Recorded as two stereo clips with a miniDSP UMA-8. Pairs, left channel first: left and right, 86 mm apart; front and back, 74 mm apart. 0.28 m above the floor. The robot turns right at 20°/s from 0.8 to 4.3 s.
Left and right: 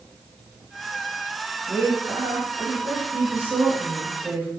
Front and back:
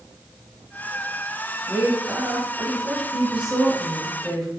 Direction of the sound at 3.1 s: 125° right.